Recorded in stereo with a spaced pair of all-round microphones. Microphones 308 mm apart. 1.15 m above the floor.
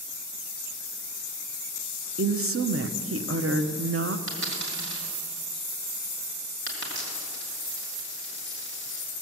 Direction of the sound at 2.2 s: 45° right (ahead or behind).